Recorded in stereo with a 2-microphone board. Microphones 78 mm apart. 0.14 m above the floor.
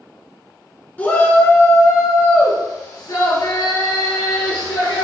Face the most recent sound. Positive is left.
turn(degrees=70)  # may be behind; listen again after turning